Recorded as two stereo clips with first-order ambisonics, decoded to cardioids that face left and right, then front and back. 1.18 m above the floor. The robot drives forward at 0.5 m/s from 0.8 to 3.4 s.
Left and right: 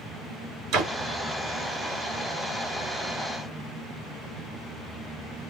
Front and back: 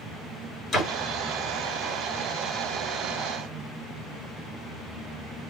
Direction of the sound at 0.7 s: 65° right.